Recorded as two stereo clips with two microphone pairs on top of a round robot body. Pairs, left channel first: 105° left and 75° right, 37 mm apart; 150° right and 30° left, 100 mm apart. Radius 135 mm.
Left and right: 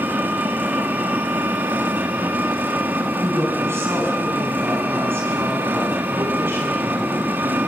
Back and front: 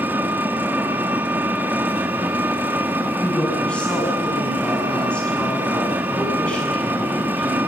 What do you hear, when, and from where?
0.0 s an engine running: 40° right, 2 m
3.2 s a woman speaking: 70° right, 8.5 m